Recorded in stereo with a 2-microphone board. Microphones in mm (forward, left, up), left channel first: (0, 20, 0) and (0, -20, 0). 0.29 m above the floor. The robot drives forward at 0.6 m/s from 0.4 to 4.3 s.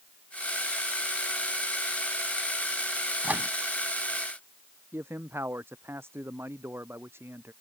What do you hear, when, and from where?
3.2 s a microwave: 45° right (ahead or behind)
4.9 s a man speaking: 85° right